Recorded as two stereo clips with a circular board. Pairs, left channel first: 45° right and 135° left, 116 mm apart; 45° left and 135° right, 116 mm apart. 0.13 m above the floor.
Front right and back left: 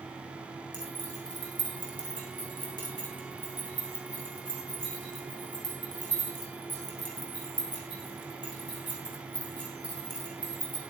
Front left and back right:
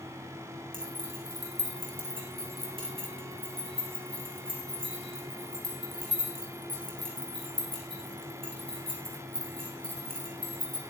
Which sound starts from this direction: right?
Keys jangling, at 0.7 s.